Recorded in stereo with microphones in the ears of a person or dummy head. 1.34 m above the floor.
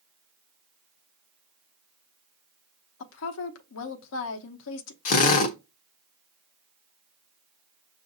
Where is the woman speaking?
75° left (ahead or behind), 0.7 m.